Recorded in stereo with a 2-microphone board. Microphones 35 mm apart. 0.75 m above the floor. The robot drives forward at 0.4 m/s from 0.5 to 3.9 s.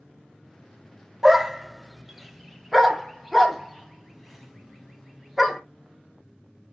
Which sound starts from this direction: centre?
A dog barking, at 1.2 s.